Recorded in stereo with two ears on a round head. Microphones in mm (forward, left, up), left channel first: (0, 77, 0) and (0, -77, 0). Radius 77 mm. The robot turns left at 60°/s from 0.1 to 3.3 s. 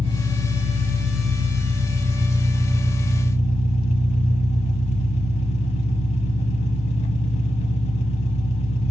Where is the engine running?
25° right, 0.7 m; by 8.9 s 140° left, 0.7 m.